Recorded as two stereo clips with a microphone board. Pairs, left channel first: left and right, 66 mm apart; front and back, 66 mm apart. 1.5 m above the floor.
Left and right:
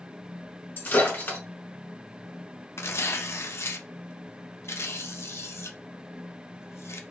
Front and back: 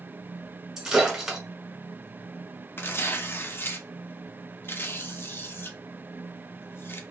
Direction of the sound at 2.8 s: 45° left.